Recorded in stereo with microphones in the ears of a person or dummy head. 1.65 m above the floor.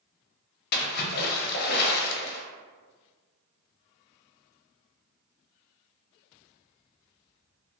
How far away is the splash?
About 0.5 m.